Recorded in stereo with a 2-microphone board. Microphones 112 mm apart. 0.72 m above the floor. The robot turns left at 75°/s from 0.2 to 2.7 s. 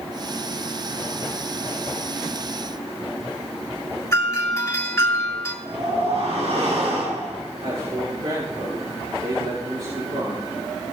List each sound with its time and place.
4.1 s a doorbell: 25° left (ahead or behind), 2.5 m
5.7 s a whoosh: 75° right (ahead or behind), 5 m
7.6 s a man speaking: 75° right (ahead or behind), 6 m